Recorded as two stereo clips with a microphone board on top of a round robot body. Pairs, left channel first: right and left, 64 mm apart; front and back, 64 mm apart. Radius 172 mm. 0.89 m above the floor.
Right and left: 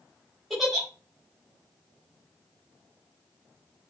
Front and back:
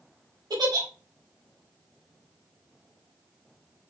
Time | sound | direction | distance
0.5 | a giggle | straight behind | 3.5 m